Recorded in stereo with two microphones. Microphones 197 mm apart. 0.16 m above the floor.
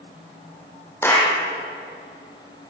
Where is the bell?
No bell in this recording.